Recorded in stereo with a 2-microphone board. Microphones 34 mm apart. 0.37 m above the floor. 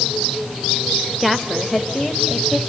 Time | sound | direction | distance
1.2 | a woman speaking | centre (ahead or behind) | 0.9 m